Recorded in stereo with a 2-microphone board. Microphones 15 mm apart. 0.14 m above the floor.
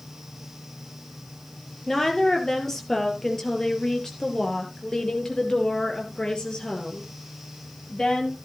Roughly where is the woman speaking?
Left.